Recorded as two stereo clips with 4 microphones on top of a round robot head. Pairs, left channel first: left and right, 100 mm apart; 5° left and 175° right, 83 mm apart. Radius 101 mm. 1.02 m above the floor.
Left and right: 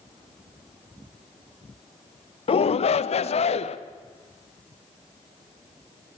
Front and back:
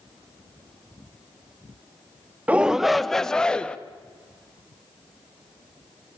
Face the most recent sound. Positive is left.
turn(degrees=80)